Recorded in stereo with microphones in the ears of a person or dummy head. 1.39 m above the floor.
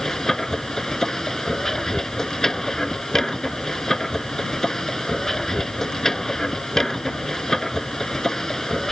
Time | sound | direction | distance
0.0 | a machine running | 5° left (ahead or behind) | ?